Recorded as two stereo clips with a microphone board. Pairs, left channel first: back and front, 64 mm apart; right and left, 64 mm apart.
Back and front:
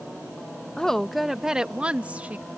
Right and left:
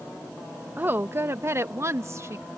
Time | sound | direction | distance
0.8 | a woman speaking | 115° left | ?